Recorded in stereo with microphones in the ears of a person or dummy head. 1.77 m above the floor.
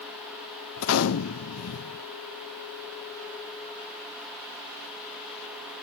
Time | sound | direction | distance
0.8 | a gunshot | 80° left | 1.0 m